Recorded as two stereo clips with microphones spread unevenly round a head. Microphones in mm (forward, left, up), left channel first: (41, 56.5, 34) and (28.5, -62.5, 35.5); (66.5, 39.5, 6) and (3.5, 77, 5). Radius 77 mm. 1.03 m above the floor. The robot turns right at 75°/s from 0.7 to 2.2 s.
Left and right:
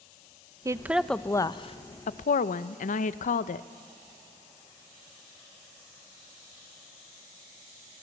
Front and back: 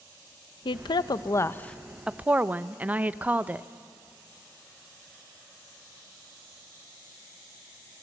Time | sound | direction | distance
0.7 | a woman speaking | 30° right | 0.7 m